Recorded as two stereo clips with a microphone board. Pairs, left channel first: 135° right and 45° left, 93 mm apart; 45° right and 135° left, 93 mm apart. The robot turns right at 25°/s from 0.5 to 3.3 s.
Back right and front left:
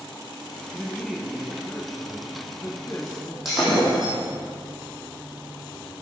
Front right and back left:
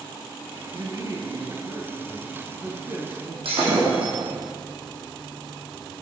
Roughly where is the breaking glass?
Behind left.